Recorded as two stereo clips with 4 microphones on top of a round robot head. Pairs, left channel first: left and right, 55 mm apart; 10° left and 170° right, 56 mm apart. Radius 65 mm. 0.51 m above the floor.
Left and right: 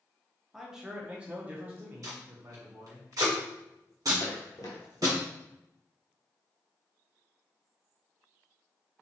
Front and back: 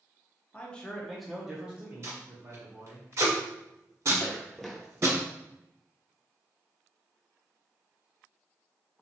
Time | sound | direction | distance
0.5 | a man speaking | 10° right | 0.8 m
2.0 | tape being pulled | 120° right | 1.3 m
4.2 | footsteps | 75° left | 0.9 m